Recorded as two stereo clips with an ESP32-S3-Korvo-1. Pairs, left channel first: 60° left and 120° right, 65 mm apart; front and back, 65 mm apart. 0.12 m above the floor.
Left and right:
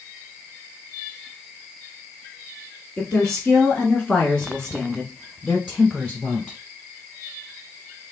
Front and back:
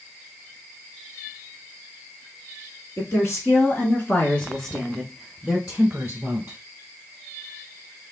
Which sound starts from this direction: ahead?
A woman speaking, at 3.0 s.